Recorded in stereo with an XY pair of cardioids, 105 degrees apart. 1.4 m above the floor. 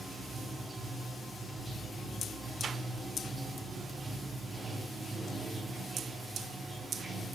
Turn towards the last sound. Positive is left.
turn(degrees=-20)